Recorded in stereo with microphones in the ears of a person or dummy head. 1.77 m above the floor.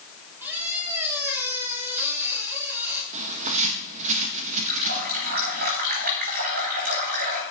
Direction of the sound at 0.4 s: 15° right (ahead or behind).